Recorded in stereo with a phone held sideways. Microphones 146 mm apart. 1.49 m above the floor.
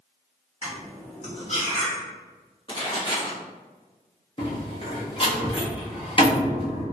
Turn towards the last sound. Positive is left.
turn(degrees=40)  # may be behind; listen again after turning